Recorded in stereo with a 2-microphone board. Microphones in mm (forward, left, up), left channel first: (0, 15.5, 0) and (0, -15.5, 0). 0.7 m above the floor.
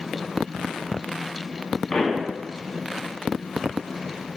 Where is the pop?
15° left (ahead or behind), 0.8 m.